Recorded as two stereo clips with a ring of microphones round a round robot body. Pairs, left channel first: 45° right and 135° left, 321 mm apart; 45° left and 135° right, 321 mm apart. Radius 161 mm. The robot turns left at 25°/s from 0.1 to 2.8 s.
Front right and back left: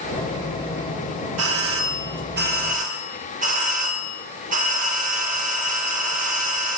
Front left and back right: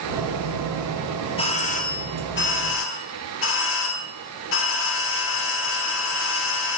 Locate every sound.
1.4 s a doorbell: 110° left, 2.5 m; by 6.8 s 75° left, 2.5 m